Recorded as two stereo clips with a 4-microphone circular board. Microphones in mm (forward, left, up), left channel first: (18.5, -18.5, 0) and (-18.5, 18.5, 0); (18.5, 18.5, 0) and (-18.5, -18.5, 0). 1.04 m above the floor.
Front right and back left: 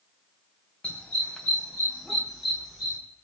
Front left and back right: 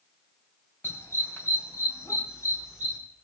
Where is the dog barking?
20° left, 2.5 m; by 3.0 s 50° left, 4.5 m.